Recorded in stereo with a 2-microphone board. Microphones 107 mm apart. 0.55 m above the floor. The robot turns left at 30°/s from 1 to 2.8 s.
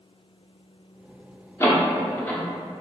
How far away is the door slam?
About 0.5 m.